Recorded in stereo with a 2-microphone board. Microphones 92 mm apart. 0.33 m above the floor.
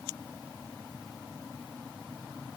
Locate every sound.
Only background noise.